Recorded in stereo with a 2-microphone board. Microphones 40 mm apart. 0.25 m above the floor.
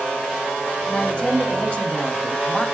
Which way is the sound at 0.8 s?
35° left (ahead or behind).